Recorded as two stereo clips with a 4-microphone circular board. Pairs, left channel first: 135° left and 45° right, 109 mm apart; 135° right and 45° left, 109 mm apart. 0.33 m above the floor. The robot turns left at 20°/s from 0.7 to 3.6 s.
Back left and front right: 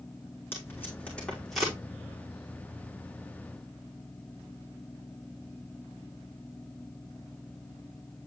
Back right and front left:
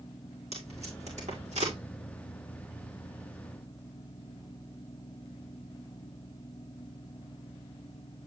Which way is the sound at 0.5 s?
65° left.